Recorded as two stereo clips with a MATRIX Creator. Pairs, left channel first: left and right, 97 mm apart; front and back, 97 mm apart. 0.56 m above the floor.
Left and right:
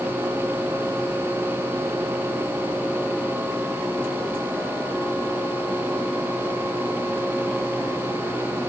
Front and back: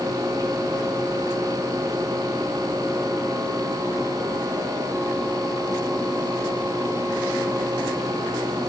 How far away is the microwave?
I don't hear a microwave.